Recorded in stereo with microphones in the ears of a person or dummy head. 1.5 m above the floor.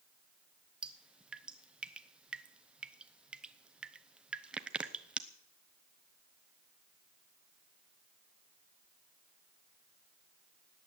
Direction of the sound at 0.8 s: 5° right (ahead or behind).